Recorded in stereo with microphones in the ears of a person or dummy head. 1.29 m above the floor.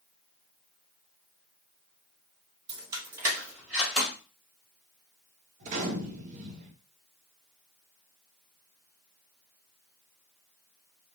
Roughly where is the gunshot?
Right.